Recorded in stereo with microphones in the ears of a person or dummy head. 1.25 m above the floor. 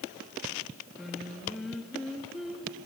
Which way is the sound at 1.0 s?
Centre (ahead or behind).